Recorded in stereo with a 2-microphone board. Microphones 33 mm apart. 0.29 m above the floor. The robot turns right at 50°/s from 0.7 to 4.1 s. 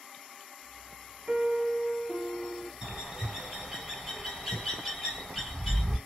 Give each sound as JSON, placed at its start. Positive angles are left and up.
{"t": 1.3, "sound": "a piano", "azimuth_deg": -45, "distance_m": 0.7}
{"t": 2.8, "sound": "a bird", "side_deg": -25, "distance_m": 1.6}